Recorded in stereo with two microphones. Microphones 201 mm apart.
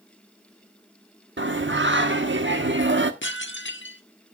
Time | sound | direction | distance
1.4 | singing | 70° right (ahead or behind) | 1.2 m
3.2 | dishes clattering | 70° left (ahead or behind) | 1.2 m